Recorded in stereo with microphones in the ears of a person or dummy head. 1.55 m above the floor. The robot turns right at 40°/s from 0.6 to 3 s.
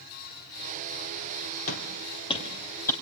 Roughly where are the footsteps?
Left.